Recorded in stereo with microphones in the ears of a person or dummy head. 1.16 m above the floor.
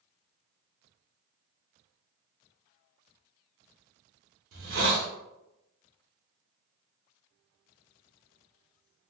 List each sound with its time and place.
4.5 s a hiss: 80° right, 0.6 m